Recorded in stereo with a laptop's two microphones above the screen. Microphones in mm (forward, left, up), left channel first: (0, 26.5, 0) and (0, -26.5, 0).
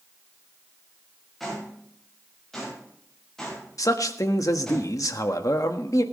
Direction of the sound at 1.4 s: 5° left (ahead or behind).